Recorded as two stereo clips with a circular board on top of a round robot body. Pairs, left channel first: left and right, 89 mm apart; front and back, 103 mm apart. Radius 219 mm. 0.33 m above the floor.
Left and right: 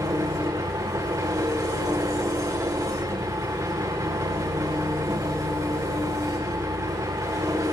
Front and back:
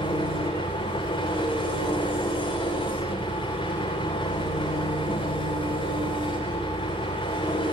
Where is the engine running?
40° right, 9.5 m.